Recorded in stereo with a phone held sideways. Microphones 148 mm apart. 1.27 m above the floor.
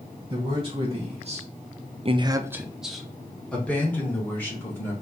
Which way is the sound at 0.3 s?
35° right (ahead or behind).